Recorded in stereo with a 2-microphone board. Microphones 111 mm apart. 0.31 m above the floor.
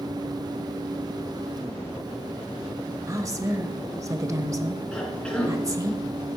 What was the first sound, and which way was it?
A woman speaking, 30° right (ahead or behind).